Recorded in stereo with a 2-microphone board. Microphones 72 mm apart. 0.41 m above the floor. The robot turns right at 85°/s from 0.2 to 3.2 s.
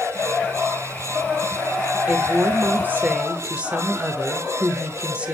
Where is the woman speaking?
130° right, 1.0 m; by 5.3 s 35° right, 1.0 m.